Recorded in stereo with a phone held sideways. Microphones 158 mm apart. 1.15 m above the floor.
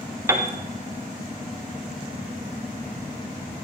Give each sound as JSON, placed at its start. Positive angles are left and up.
{"t": 0.3, "sound": "a piano", "side_deg": -15, "distance_m": 0.7}